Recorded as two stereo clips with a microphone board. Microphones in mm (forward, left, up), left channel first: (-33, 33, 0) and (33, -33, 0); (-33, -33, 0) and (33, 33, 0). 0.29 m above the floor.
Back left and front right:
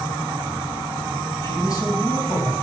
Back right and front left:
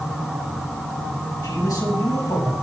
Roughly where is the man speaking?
Behind.